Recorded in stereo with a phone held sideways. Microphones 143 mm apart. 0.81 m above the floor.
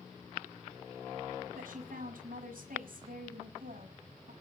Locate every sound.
1.5 s a woman speaking: 80° right, 7 m